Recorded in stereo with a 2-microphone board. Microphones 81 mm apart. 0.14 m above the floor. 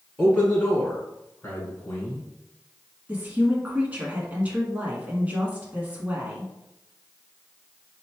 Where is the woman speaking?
20° right (ahead or behind), 1.1 m.